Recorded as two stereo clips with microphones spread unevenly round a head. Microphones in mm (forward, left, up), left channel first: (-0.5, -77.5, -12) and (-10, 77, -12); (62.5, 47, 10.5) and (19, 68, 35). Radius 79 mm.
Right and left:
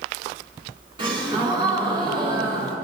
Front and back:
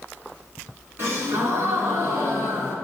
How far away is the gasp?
About 3 m.